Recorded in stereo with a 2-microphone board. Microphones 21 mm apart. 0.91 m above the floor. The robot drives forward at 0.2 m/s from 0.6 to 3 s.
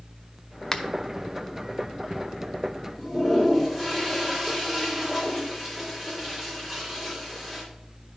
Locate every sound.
0.7 s a finger snap: 25° left (ahead or behind), 0.6 m
3.0 s a toilet flushing: 15° right (ahead or behind), 2 m